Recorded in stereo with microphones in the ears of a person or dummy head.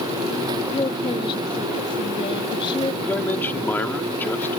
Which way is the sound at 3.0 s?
10° left (ahead or behind).